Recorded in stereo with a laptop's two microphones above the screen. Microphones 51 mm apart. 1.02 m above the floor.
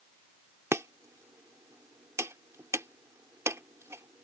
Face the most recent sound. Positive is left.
turn(degrees=-70)  # may be behind; listen again after turning